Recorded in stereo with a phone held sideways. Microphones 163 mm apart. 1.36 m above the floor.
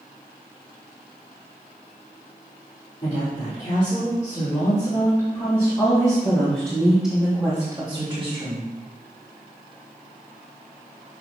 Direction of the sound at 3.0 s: 55° left (ahead or behind).